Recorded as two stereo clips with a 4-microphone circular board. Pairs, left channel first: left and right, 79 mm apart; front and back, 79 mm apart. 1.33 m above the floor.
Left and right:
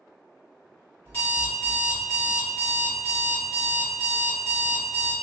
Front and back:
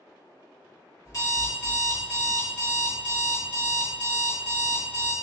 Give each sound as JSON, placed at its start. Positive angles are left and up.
{"t": 1.1, "sound": "an alarm clock", "azimuth_deg": 35, "distance_m": 1.3}